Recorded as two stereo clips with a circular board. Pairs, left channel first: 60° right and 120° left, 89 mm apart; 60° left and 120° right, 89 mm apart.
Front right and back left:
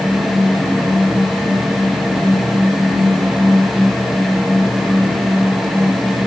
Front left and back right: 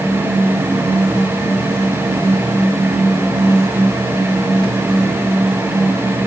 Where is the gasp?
No gasp in this recording.